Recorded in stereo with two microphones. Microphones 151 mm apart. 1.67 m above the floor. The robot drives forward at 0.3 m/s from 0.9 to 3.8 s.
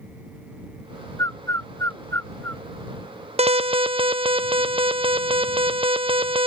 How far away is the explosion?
No explosion in this recording.